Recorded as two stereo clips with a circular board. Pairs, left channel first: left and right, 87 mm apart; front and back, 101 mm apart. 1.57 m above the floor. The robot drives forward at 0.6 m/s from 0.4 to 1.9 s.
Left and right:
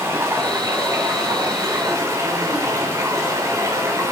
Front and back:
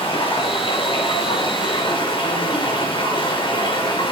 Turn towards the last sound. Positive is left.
turn(degrees=-35)